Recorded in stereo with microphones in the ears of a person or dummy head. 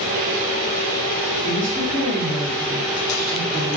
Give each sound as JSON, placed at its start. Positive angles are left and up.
{"t": 1.4, "sound": "a woman speaking", "side_deg": 20, "distance_m": 1.0}